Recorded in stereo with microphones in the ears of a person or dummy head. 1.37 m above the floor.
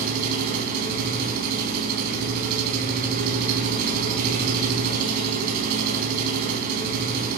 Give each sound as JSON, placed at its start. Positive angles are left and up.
{"t": 0.0, "sound": "an engine running", "side_deg": -55, "distance_m": 3.5}